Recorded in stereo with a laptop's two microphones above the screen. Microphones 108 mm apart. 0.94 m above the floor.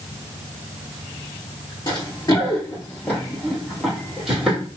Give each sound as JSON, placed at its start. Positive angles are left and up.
{"t": 1.9, "sound": "running footsteps", "side_deg": 45, "distance_m": 1.2}